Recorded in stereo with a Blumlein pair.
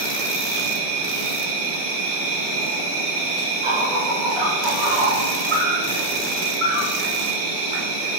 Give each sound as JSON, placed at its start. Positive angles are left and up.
{"t": 0.0, "sound": "an insect", "azimuth_deg": -50, "distance_m": 0.7}